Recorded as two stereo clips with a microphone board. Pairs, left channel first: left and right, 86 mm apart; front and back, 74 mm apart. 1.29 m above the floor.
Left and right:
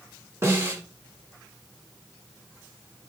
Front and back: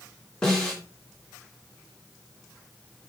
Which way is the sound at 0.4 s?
70° right.